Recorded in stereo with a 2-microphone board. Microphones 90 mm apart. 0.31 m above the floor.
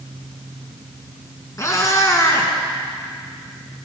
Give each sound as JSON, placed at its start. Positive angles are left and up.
{"t": 1.6, "sound": "a cat meowing", "side_deg": 35, "distance_m": 1.6}